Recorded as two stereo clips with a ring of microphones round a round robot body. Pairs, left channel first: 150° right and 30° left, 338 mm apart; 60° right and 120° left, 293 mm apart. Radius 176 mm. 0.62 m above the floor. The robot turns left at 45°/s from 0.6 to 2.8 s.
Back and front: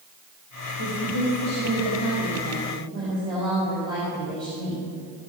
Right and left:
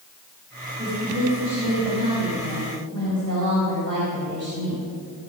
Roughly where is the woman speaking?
Behind.